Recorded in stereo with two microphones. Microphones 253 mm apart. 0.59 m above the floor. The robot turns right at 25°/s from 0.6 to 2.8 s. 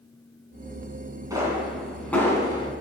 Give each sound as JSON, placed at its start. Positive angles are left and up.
{"t": 1.3, "sound": "a pop", "side_deg": -15, "distance_m": 2.5}